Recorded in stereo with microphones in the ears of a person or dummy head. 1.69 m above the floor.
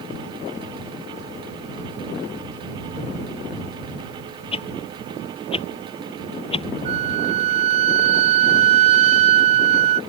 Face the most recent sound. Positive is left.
turn(degrees=-40)  # may be behind; listen again after turning